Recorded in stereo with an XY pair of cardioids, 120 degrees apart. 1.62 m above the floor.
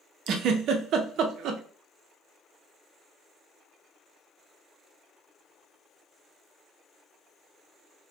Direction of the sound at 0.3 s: 65° right.